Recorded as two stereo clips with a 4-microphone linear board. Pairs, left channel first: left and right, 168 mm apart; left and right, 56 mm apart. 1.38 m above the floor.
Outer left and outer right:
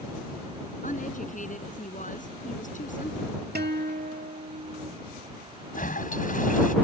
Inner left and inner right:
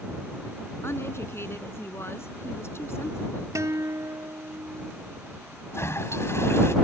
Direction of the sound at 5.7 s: 55° left (ahead or behind).